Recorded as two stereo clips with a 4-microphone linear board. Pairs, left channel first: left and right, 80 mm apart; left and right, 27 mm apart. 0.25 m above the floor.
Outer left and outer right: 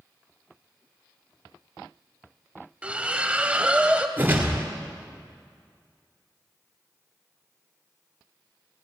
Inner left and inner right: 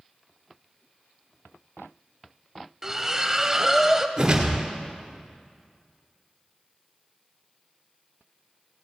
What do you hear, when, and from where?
2.8 s a splash: 15° right (ahead or behind), 0.6 m
4.2 s a whoosh: 25° right (ahead or behind), 2.0 m